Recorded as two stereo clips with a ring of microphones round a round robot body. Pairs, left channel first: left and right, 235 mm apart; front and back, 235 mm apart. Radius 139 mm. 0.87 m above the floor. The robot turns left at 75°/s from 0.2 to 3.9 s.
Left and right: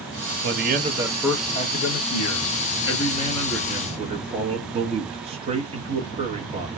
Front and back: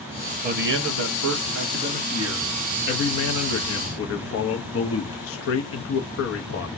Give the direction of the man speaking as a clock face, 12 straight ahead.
4 o'clock.